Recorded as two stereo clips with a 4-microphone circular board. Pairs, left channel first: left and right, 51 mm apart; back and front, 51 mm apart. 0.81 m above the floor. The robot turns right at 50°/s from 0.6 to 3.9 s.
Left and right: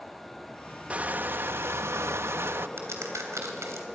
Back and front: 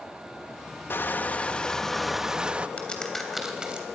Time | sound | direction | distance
0.9 | crushing | 150° right | 0.5 m
2.8 | a crack | 115° right | 3 m